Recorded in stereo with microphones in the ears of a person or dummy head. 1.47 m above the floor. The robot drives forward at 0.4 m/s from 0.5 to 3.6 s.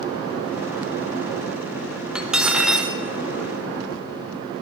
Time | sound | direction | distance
2.1 | cutlery clinking | 5° right (ahead or behind) | 1.4 m